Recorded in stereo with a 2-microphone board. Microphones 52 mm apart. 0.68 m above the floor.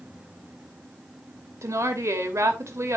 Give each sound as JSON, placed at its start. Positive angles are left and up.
{"t": 1.6, "sound": "a woman speaking", "side_deg": -70, "distance_m": 2.5}